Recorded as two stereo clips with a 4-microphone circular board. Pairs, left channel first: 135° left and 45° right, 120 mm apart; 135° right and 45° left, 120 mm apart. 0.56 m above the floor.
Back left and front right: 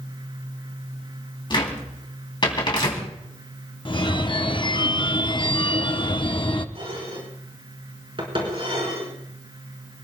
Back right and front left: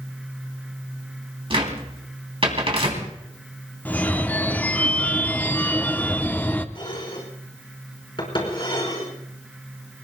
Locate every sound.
1.5 s a cupboard door: 85° left, 3 m
3.9 s a phone ringing: 155° left, 0.7 m
6.8 s dishes clattering: 90° right, 4 m